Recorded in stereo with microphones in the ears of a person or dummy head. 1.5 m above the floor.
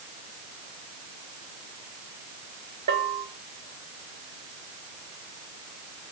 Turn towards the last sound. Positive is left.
turn(degrees=-50)  # may be behind; listen again after turning